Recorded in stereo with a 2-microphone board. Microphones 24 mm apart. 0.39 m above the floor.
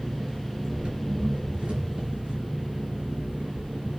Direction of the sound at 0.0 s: 40° right (ahead or behind).